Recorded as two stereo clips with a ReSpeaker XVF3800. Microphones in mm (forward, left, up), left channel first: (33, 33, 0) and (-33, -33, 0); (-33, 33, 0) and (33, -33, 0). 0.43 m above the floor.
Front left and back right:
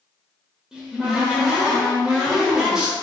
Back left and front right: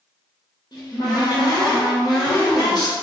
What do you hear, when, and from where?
0.7 s a cupboard door: 145° left, 0.9 m